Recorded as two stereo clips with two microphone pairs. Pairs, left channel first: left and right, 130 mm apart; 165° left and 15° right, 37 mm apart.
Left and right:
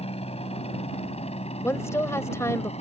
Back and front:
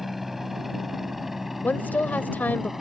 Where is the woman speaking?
155° left.